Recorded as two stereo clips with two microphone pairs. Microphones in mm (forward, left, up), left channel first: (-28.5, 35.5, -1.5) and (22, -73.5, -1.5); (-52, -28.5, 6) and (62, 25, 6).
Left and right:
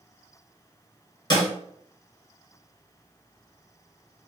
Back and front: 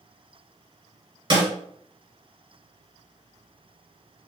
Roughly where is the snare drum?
Left.